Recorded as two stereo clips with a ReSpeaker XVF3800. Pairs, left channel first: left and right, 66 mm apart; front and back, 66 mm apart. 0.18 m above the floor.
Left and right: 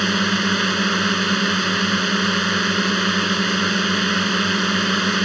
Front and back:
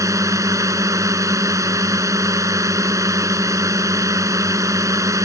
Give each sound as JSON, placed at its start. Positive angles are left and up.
{"t": 0.0, "sound": "a drone", "azimuth_deg": 180}